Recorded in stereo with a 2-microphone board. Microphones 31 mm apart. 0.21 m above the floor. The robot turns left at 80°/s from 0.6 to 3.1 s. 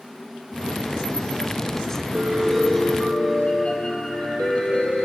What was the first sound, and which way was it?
A piano, 145° right.